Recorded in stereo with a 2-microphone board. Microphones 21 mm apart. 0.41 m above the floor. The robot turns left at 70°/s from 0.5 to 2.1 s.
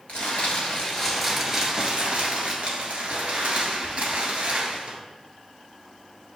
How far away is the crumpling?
About 1.2 m.